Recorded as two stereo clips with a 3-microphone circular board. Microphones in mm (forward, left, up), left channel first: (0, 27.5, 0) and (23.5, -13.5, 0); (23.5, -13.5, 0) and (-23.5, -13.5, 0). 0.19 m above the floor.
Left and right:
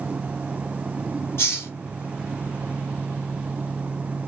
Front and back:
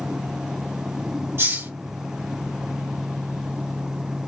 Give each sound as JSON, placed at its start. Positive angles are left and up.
{"t": 1.4, "sound": "a hiss", "azimuth_deg": 155, "distance_m": 2.5}